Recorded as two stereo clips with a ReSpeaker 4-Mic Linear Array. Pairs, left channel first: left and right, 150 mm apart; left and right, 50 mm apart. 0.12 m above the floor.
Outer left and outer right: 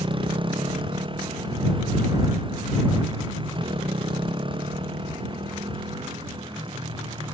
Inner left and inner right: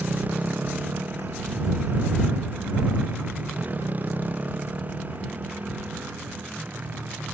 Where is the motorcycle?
35° right (ahead or behind).